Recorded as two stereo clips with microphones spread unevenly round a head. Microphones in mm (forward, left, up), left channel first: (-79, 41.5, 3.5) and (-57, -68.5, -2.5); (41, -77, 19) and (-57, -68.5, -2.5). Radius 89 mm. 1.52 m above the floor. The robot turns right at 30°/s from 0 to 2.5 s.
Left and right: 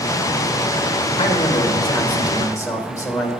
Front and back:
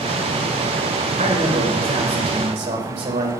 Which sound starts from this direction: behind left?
A man speaking, at 1.2 s.